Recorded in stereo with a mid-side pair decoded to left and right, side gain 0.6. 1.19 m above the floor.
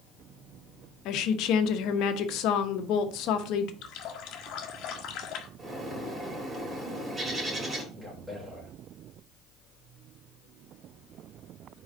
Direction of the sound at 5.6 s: 25° right.